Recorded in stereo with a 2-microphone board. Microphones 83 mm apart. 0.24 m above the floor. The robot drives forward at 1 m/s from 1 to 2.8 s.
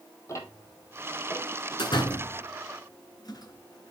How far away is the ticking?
About 1.8 m.